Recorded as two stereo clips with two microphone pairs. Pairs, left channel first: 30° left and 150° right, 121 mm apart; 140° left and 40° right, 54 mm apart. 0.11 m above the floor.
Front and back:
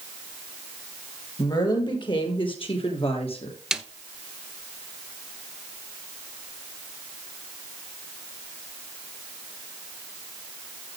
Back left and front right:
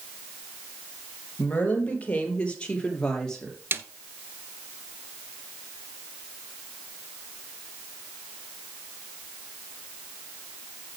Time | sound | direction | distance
1.4 | a woman speaking | 80° left | 3.5 m
3.7 | a snare drum | 65° right | 0.8 m